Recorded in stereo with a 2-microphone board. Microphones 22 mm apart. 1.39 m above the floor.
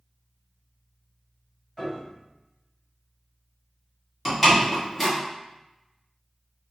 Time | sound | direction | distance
1.8 | a piano | 20° left (ahead or behind) | 1.7 m
4.2 | a door slam | centre (ahead or behind) | 1.5 m